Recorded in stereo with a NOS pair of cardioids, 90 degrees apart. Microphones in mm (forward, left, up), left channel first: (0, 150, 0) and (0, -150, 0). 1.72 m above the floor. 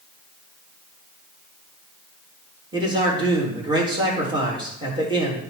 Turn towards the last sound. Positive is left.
turn(degrees=-15)